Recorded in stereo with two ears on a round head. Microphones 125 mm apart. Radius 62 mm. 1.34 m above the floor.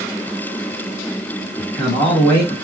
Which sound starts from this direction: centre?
A man speaking, at 1.6 s.